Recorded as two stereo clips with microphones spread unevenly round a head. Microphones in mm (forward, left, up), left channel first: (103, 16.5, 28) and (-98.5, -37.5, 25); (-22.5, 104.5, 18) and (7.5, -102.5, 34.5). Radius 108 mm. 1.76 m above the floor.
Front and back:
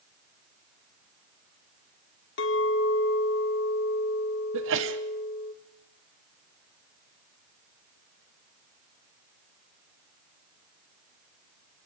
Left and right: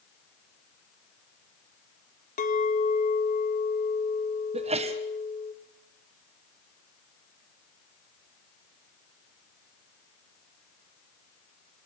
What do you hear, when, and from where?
2.4 s a clink: 45° left, 2 m
4.5 s a sneeze: 140° right, 1.3 m